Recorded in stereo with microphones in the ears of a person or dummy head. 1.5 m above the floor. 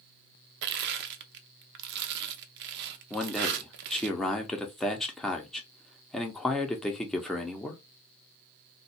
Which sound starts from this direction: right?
Crushing, at 0.6 s.